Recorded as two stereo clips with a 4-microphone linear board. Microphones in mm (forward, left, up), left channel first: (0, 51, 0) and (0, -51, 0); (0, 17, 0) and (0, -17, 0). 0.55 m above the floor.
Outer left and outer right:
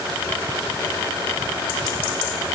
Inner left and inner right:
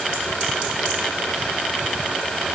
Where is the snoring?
No snoring in this recording.